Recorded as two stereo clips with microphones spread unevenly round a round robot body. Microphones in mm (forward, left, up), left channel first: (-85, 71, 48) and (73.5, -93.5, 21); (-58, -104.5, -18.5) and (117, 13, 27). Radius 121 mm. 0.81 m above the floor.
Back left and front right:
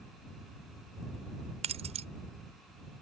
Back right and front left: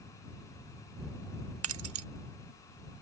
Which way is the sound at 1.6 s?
20° left.